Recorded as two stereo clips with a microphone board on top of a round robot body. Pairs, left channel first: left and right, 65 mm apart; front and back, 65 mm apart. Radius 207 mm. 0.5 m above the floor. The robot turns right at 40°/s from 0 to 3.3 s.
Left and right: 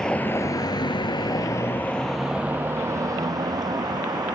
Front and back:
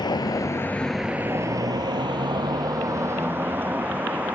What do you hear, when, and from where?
0.0 s a vehicle: 10° left; by 4.3 s 115° right